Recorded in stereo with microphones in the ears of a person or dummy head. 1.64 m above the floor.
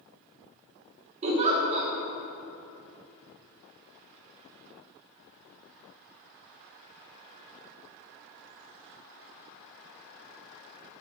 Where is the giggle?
35° right (ahead or behind), 1.5 m.